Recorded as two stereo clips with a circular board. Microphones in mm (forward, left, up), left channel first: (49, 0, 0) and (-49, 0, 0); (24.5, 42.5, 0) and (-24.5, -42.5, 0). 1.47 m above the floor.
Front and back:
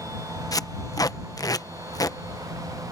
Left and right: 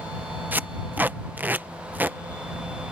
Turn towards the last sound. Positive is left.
turn(degrees=-50)